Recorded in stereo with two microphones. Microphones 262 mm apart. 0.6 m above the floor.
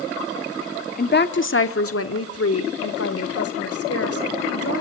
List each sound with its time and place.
1.0 s a woman speaking: 35° left (ahead or behind), 1.2 m; by 4.8 s 60° left (ahead or behind), 3.5 m